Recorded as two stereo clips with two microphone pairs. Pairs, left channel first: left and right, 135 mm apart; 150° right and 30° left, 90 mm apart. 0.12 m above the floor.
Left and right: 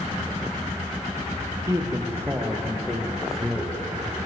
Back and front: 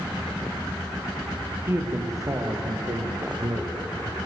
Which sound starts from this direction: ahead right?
A man speaking, at 1.7 s.